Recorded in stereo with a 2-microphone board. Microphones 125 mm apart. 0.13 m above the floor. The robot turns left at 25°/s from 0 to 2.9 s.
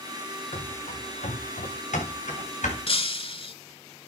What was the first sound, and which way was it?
Running footsteps, 60° left (ahead or behind).